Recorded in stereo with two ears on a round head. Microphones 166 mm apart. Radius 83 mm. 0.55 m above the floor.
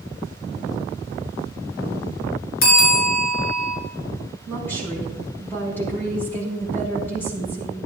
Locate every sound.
2.6 s a bell: 60° left (ahead or behind), 4.5 m
4.5 s a woman speaking: 10° left (ahead or behind), 4.5 m